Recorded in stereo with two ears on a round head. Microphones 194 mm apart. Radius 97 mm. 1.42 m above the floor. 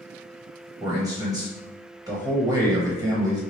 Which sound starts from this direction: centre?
A man speaking, at 0.8 s.